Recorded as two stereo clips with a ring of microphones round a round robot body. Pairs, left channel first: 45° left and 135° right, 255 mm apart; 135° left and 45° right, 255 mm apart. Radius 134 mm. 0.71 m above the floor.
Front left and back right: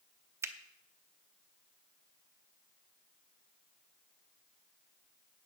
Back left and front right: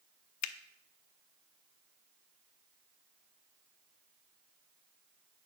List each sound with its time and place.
0.4 s a finger snap: 145° left, 0.8 m